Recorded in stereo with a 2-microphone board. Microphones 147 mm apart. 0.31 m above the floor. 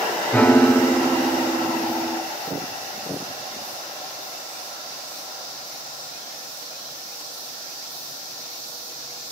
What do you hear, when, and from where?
0.3 s a piano: 10° left (ahead or behind), 1.4 m